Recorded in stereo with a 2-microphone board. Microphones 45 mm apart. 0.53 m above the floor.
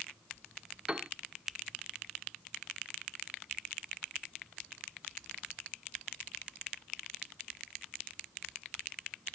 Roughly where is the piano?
Right.